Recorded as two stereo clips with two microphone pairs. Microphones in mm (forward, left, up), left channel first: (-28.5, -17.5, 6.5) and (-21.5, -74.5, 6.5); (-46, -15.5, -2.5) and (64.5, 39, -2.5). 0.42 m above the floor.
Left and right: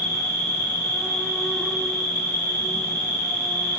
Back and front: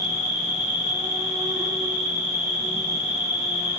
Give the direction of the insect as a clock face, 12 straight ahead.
9 o'clock.